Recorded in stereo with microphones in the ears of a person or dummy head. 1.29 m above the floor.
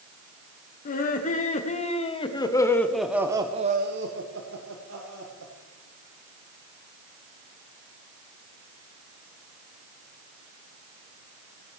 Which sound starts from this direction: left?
Laughter, at 0.8 s.